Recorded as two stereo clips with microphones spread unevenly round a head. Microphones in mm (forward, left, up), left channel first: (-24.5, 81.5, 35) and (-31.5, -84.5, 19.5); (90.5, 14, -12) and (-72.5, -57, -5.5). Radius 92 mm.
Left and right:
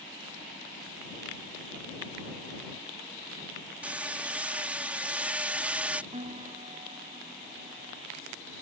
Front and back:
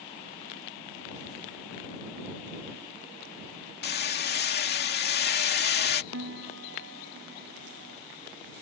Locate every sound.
3.8 s hammering: 10° right
6.1 s a piano: 150° right